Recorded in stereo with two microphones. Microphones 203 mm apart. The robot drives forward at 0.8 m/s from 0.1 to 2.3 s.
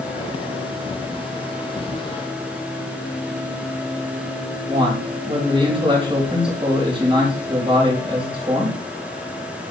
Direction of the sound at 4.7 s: 25° right (ahead or behind).